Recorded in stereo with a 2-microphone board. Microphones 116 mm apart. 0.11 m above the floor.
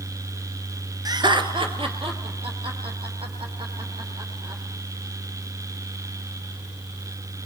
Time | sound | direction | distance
1.1 | laughter | 35° right (ahead or behind) | 1.3 m